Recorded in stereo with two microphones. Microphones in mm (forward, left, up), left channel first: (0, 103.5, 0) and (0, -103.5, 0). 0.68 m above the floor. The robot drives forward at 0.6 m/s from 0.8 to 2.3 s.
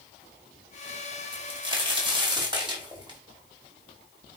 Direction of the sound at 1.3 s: 25° right (ahead or behind).